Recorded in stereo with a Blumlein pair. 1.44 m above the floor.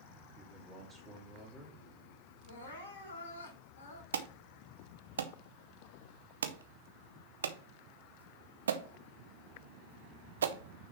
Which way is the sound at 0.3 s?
5° right.